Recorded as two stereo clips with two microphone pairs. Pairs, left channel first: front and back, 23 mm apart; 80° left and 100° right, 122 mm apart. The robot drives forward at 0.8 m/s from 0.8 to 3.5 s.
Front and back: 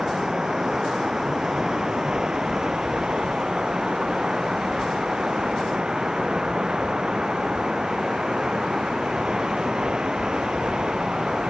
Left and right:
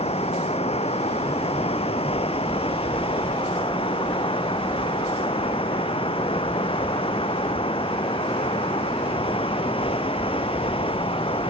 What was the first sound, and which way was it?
Running water, 115° left.